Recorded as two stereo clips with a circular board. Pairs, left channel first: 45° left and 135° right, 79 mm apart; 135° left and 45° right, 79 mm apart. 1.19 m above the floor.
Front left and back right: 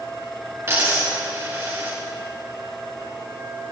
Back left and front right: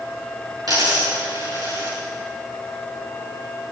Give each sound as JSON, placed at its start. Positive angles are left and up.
{"t": 0.7, "sound": "a dropped coin", "azimuth_deg": -80, "distance_m": 6.0}